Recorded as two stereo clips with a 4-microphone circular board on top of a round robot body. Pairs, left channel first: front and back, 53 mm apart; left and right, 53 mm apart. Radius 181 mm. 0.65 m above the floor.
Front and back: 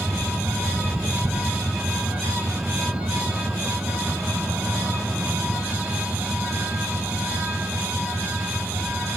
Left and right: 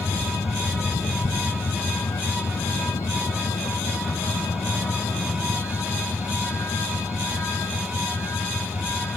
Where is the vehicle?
105° left; by 9.2 s 120° left.